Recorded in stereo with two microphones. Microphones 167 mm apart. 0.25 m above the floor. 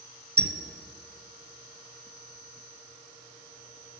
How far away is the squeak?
About 0.6 m.